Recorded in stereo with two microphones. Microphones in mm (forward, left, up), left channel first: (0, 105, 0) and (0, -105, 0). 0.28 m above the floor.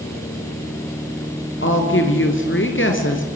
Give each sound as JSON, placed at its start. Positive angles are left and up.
{"t": 1.6, "sound": "a woman speaking", "side_deg": 70, "distance_m": 4.0}